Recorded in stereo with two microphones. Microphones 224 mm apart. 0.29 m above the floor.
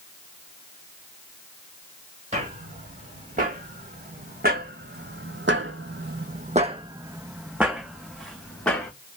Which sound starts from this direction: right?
Footsteps, at 2.3 s.